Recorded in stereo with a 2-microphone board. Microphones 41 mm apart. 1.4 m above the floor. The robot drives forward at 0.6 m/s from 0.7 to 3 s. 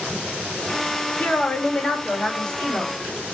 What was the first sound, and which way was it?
A woman speaking, 35° left (ahead or behind).